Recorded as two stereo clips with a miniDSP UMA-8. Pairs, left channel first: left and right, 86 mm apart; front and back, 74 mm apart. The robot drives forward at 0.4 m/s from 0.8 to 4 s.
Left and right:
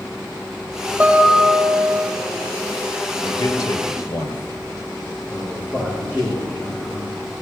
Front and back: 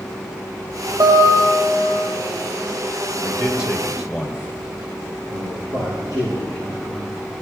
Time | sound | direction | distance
1.0 | a guitar | 170° right | 3.5 m
3.2 | a man speaking | 95° left | 2 m
5.3 | a man speaking | 150° left | 7 m